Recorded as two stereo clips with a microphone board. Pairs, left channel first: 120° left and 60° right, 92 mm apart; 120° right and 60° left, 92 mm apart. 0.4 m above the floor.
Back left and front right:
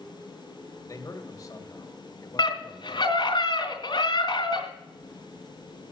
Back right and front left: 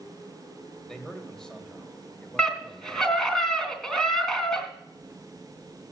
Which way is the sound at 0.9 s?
160° left.